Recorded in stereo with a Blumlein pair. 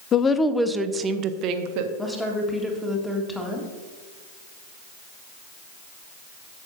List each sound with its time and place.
0.1 s a woman speaking: 25° left, 0.6 m; by 1.9 s 45° right, 1.0 m
2.0 s a woman speaking: 5° left, 1.6 m